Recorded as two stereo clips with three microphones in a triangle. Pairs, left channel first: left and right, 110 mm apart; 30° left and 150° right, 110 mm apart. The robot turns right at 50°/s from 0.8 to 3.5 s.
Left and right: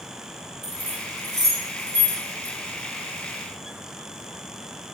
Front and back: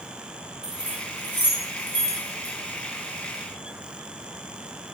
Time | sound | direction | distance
0.6 | keys jangling | 70° right | 0.8 m